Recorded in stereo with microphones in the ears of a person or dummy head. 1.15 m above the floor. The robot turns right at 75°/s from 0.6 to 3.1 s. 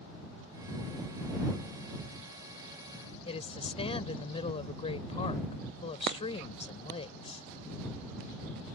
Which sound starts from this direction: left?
A woman speaking, at 3.2 s.